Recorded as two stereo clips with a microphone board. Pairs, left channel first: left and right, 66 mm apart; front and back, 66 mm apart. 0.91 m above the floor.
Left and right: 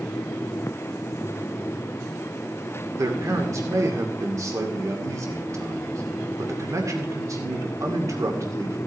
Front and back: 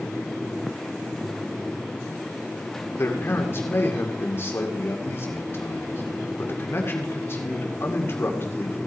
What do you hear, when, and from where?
3.0 s a man speaking: 55° right, 2 m